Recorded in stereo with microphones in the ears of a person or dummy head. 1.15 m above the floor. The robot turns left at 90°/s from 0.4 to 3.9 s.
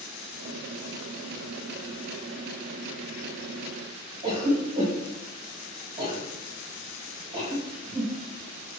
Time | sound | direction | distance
4.2 | a cough | 25° right (ahead or behind) | 1.1 m